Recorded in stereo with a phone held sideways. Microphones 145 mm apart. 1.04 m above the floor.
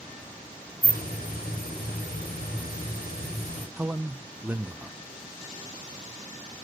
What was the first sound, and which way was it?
A hiss, 80° left.